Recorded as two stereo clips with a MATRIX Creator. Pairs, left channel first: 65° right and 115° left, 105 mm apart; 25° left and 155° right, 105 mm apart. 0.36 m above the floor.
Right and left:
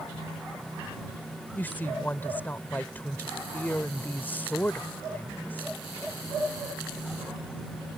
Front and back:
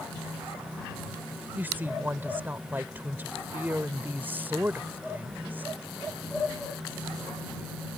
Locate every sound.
1.6 s a woman speaking: 115° right